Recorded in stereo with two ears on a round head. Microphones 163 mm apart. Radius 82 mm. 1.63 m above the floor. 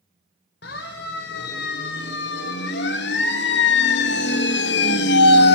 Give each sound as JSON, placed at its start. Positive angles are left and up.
{"t": 0.6, "sound": "a siren", "side_deg": 60, "distance_m": 5.0}